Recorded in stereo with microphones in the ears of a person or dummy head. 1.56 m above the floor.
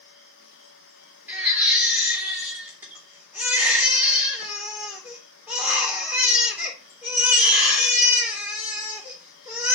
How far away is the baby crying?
About 3 m.